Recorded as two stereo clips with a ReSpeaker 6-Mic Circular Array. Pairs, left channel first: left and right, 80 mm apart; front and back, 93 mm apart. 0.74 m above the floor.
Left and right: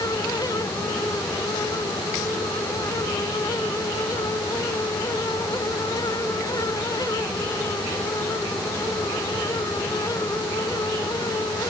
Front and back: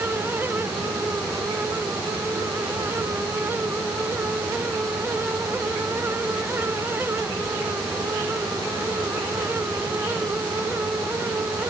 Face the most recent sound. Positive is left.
No sound to turn to.